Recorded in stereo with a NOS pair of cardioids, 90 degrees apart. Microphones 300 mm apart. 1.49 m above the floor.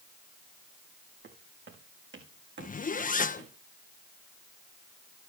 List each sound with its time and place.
1.2 s footsteps: 40° right, 6 m
2.6 s a zipper: 25° left, 1.4 m